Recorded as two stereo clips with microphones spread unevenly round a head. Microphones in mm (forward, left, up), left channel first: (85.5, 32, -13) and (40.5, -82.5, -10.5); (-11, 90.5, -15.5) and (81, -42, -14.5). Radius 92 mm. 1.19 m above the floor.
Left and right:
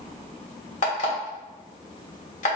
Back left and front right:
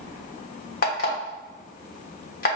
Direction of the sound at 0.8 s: 100° left.